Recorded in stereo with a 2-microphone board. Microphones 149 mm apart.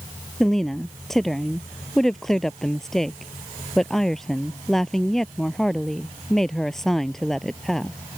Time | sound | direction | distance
0.4 | a woman speaking | centre (ahead or behind) | ?